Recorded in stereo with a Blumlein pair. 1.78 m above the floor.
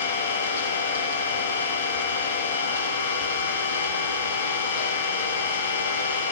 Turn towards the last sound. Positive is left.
turn(degrees=60)